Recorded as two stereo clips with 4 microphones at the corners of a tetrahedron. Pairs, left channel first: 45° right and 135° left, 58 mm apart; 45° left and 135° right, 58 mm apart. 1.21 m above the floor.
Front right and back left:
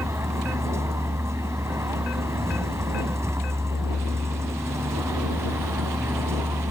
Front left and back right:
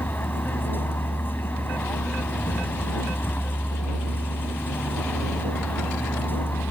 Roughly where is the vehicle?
Left.